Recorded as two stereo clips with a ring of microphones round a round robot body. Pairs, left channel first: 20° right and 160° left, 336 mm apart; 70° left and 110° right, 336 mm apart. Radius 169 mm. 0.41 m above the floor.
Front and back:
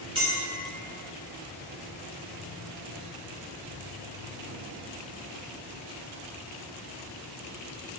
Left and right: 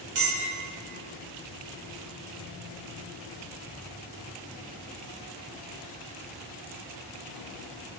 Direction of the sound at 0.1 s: 130° right.